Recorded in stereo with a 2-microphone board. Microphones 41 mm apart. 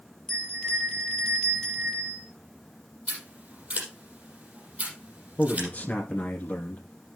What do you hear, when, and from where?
0.3 s a bell: 10° left (ahead or behind), 5 m
3.1 s scissors: 30° right (ahead or behind), 5.5 m
5.4 s a man speaking: 45° left (ahead or behind), 1.9 m